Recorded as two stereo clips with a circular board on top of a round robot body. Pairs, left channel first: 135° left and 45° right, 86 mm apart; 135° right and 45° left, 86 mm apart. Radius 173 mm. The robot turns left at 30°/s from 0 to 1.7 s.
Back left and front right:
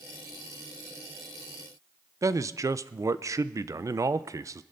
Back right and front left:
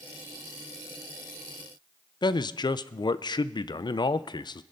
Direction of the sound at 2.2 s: 100° right.